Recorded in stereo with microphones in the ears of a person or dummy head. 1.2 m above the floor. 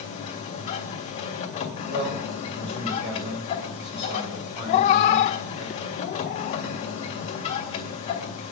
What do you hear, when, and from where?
0.0 s a machine running: 40° left (ahead or behind), 2 m
1.9 s a man speaking: 50° right (ahead or behind), 6 m
4.7 s a cat meowing: 45° left (ahead or behind), 0.7 m